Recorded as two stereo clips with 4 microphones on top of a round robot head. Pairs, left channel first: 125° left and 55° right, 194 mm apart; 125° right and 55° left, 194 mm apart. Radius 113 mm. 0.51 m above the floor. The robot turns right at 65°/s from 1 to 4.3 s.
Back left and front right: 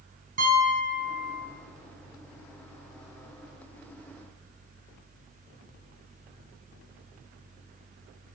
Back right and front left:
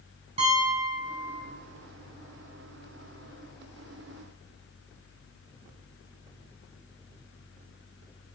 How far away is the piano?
About 6 m.